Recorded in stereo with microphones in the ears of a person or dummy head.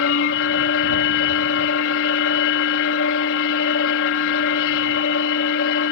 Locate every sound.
0.0 s a machine running: 70° left (ahead or behind)